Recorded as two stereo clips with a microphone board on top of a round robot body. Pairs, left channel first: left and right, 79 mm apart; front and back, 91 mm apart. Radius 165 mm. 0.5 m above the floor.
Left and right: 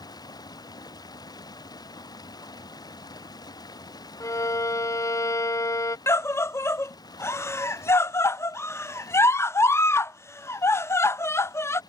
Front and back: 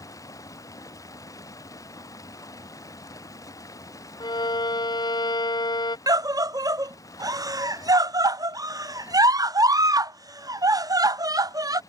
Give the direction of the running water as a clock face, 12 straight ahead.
10 o'clock.